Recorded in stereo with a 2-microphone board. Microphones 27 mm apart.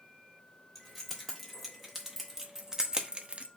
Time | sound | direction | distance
0.8 | keys jangling | 5° left (ahead or behind) | 1.6 m